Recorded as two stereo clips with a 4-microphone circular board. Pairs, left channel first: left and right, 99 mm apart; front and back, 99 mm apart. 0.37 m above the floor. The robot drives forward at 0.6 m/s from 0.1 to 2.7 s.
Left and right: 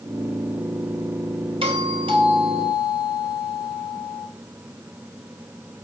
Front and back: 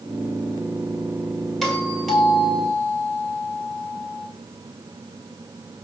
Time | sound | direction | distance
1.6 | a doorbell | 90° right | 4 m